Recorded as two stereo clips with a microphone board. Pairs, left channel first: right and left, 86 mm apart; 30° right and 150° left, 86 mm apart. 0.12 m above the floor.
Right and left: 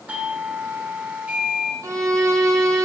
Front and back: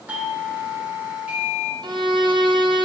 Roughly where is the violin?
Behind left.